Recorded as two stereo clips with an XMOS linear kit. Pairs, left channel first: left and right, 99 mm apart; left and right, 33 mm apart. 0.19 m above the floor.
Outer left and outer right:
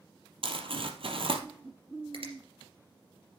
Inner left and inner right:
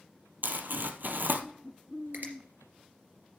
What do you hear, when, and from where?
0.4 s crumpling: 65° right (ahead or behind), 1.3 m
2.1 s a finger snap: 65° right (ahead or behind), 3 m